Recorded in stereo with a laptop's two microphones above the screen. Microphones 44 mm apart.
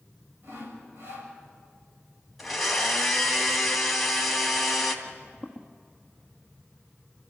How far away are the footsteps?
About 1.3 m.